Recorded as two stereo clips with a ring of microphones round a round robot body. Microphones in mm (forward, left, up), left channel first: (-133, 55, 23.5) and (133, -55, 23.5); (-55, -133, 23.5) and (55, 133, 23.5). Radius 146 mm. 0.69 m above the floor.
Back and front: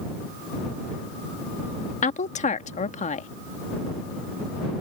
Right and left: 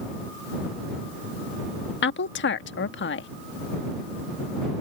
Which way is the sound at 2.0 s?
145° right.